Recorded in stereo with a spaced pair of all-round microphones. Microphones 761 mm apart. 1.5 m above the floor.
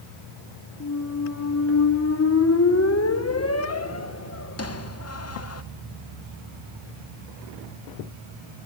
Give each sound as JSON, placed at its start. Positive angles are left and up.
{"t": 0.8, "sound": "a squeak", "side_deg": 20, "distance_m": 0.8}